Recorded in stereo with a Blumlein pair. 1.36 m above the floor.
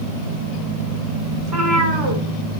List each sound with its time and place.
1.4 s a cat meowing: 25° right, 1.9 m